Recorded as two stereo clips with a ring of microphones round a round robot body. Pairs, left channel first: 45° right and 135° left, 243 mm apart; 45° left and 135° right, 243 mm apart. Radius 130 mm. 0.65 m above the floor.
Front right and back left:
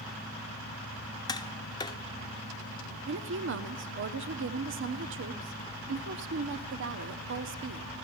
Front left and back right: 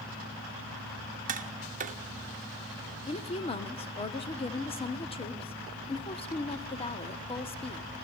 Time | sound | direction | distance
1.3 | tapping | 105° right | 1.1 m
3.1 | a woman speaking | 110° left | 1.1 m